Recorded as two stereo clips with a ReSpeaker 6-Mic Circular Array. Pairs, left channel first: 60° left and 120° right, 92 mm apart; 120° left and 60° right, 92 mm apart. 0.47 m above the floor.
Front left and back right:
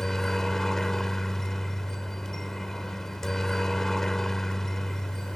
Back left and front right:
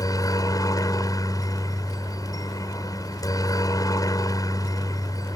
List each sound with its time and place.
0.0 s a helicopter: 145° left